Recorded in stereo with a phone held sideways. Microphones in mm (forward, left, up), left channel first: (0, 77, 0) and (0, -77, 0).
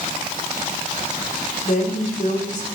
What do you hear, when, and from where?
1.6 s a woman speaking: 55° left (ahead or behind), 3.5 m